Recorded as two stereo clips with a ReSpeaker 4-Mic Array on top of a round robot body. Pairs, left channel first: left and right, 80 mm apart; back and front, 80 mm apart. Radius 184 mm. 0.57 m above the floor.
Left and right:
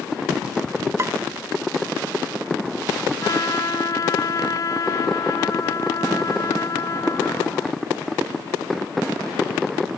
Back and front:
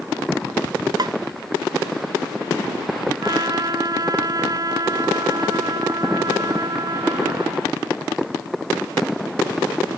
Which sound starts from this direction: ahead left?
A trumpet, at 3.2 s.